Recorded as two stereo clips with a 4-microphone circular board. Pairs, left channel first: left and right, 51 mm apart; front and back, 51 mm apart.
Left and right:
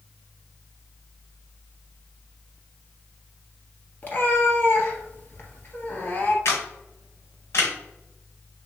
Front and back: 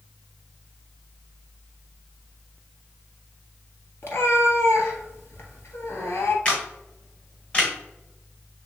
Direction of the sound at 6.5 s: 65° left.